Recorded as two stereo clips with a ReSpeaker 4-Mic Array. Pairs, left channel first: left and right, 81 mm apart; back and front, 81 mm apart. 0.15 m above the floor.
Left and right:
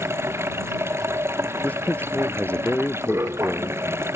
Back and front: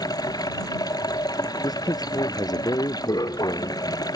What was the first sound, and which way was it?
Running water, 145° right.